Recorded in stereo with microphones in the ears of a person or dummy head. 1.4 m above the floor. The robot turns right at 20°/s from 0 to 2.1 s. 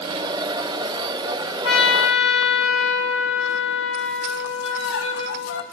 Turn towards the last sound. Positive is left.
turn(degrees=70)  # may be behind; listen again after turning